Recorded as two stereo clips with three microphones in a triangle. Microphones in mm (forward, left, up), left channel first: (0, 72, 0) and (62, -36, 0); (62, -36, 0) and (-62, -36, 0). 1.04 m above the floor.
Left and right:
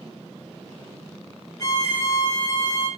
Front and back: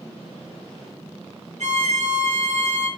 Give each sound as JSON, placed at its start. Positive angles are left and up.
{"t": 1.6, "sound": "a violin", "azimuth_deg": 175, "distance_m": 3.0}